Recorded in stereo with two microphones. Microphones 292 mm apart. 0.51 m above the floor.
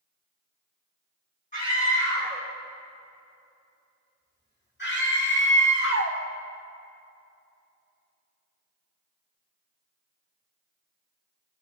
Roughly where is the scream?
Left.